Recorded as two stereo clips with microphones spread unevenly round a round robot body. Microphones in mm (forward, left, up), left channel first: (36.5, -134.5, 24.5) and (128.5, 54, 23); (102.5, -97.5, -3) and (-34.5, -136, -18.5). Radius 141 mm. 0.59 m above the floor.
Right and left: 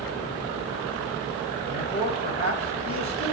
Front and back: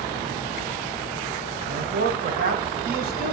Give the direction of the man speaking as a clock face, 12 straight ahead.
6 o'clock.